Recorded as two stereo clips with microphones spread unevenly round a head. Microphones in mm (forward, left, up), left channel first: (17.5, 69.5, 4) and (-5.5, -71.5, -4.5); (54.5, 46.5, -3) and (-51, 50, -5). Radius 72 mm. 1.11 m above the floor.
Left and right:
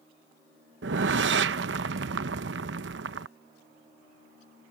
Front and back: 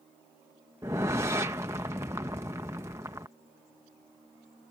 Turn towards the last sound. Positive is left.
turn(degrees=-110)